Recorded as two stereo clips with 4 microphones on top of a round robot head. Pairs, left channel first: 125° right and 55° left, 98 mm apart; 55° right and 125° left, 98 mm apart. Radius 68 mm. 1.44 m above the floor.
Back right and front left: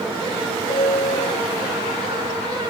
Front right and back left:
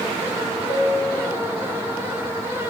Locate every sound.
0.7 s a piano: 105° right, 3.5 m